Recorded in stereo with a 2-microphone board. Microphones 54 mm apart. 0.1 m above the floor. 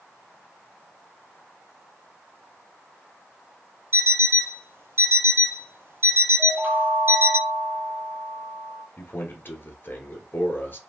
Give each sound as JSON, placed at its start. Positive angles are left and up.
{"t": 3.9, "sound": "an alarm clock", "side_deg": -50, "distance_m": 1.1}
{"t": 6.4, "sound": "a chime", "side_deg": -45, "distance_m": 0.6}
{"t": 9.0, "sound": "a man speaking", "side_deg": 40, "distance_m": 1.4}